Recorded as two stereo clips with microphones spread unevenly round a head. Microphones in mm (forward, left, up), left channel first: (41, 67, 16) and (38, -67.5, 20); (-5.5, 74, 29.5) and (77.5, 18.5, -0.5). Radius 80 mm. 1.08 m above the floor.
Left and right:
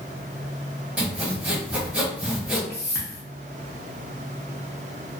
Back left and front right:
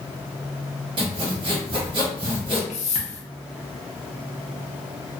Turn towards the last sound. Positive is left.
turn(degrees=150)